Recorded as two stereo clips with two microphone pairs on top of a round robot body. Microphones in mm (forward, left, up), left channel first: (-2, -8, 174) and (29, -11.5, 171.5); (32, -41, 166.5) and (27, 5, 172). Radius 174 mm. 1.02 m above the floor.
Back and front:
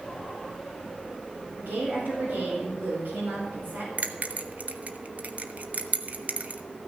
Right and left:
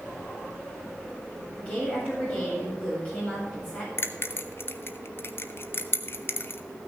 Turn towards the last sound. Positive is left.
turn(degrees=-45)